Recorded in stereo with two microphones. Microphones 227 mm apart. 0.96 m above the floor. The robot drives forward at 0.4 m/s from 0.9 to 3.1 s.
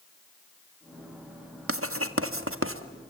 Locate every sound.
1.7 s writing: 75° right (ahead or behind), 1.5 m; by 2.8 s 70° right (ahead or behind), 1.5 m